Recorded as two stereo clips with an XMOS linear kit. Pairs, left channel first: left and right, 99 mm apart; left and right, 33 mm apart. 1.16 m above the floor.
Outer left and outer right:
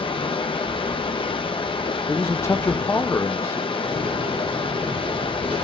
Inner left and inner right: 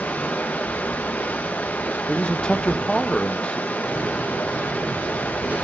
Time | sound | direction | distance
0.0 | running water | 65° left (ahead or behind) | 1.0 m
2.1 | a man speaking | 30° left (ahead or behind) | 0.7 m
3.8 | a door slam | 90° right | 6 m